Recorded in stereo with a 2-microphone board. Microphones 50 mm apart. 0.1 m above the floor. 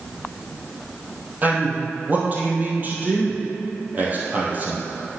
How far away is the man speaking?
About 2.5 m.